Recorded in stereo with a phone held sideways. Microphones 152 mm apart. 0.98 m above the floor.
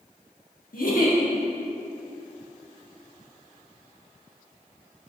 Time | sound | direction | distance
0.7 | a giggle | 70° left (ahead or behind) | 1.3 m